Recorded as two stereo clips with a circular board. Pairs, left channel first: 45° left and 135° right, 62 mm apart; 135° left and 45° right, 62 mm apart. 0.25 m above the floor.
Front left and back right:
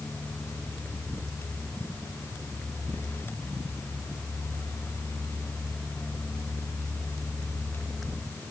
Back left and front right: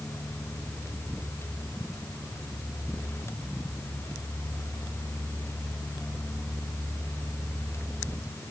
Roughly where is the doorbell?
No doorbell in this recording.